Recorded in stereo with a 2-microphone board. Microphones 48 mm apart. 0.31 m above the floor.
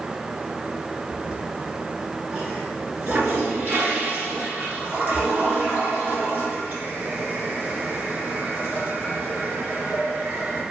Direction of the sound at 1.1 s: 40° right (ahead or behind).